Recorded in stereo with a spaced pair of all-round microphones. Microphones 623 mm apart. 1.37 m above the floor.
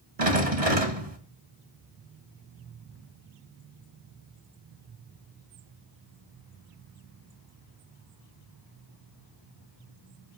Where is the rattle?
75° right (ahead or behind), 2.5 m.